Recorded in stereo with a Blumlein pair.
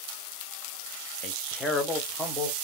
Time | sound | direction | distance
1.2 | a man speaking | 30° left | 0.6 m